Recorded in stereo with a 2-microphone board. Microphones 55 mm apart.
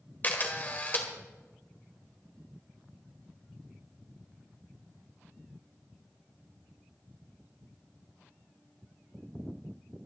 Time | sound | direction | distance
0.2 | a camera shutter | 35° left (ahead or behind) | 1.7 m